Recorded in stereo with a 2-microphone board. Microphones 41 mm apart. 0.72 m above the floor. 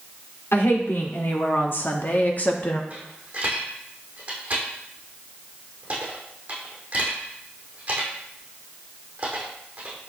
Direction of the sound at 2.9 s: 30° right (ahead or behind).